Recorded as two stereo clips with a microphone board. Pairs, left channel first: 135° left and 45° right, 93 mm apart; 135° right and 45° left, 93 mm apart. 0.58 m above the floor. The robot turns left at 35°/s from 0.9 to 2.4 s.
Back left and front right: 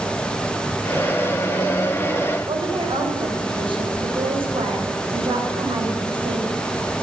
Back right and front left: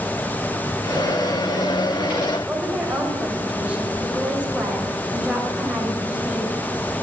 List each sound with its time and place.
2.5 s a woman speaking: 35° right, 3.5 m